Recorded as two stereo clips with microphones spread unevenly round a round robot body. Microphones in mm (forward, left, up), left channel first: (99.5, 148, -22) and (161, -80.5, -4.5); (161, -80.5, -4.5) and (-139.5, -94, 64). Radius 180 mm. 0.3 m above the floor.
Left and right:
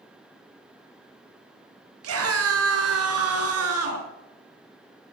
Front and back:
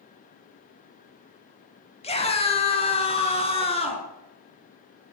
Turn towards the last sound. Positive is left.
turn(degrees=-65)